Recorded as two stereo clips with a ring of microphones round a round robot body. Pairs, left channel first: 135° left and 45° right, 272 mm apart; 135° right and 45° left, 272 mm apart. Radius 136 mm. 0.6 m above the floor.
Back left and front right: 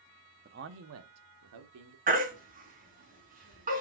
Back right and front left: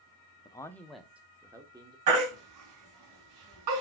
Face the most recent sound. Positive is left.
turn(degrees=20)